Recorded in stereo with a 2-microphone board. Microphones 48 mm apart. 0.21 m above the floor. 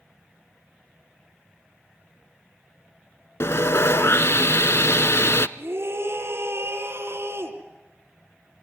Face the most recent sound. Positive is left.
turn(degrees=-60)  # may be behind; listen again after turning